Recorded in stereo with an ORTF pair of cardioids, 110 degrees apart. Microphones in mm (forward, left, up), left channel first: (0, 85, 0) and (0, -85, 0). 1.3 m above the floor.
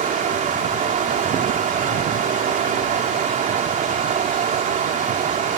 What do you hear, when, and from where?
0.0 s running water: 50° right